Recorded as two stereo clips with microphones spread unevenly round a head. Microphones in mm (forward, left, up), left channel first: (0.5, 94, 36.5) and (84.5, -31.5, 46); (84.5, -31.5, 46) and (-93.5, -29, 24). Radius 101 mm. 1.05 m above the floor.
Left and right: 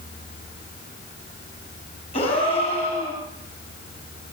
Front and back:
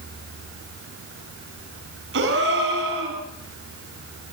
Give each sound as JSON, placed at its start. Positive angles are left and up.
{"t": 2.1, "sound": "a gasp", "azimuth_deg": -175, "distance_m": 7.0}